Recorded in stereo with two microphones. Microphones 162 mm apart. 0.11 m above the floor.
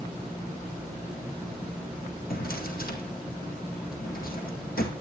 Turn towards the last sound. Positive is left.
turn(degrees=65)  # may be behind; listen again after turning